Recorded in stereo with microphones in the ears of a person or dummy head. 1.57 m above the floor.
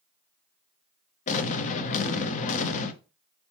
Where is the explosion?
35° left (ahead or behind), 0.6 m.